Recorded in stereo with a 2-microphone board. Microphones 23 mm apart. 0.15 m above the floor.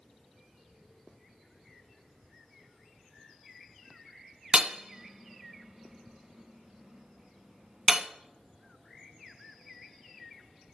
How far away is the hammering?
About 1.2 m.